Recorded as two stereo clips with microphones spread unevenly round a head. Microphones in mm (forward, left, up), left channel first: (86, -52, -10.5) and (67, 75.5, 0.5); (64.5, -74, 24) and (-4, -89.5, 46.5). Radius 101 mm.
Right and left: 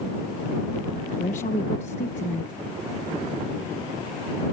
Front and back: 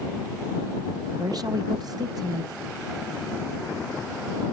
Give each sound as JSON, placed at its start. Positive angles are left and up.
{"t": 1.2, "sound": "a woman speaking", "azimuth_deg": -140}